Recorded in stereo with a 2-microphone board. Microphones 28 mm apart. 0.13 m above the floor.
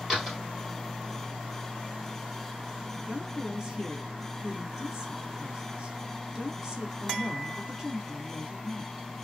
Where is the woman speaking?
20° right (ahead or behind), 1.2 m.